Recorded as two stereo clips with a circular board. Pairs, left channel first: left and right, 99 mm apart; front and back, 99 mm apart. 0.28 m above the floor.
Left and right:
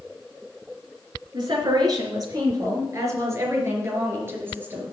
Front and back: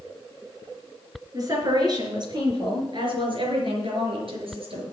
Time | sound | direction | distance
1.3 | a woman speaking | 130° right | 3.5 m